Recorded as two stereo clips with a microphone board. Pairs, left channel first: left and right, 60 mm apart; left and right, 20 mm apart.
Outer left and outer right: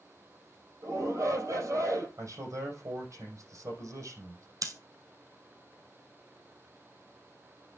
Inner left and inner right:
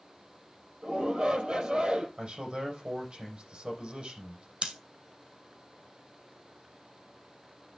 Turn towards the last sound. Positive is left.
turn(degrees=-65)  # may be behind; listen again after turning